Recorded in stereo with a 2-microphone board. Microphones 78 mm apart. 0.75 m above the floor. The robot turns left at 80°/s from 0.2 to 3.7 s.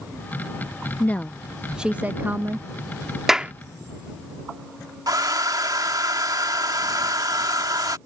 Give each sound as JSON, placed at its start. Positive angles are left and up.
{"t": 1.0, "sound": "a woman speaking", "azimuth_deg": 45}
{"t": 3.3, "sound": "a clap", "side_deg": -5}
{"t": 5.1, "sound": "a hair dryer", "side_deg": -65}